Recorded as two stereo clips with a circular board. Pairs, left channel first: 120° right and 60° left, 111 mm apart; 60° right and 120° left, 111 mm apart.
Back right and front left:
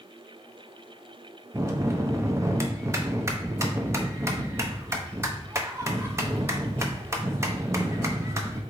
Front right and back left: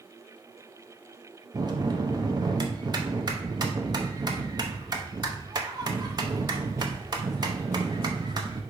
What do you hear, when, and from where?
1.5 s a bell: 110° left, 0.6 m